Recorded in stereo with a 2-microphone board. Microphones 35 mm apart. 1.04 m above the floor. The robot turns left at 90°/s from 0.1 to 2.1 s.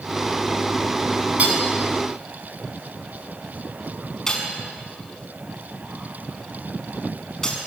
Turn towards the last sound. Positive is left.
turn(degrees=15)  # may be behind; listen again after turning